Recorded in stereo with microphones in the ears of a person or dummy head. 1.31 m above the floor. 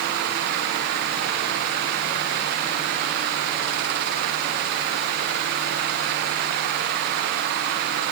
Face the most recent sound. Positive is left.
No sound to turn to.